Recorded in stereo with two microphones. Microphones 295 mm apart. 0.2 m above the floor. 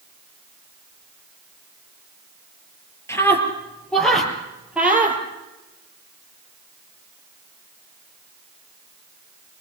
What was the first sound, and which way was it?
A scream, 10° left (ahead or behind).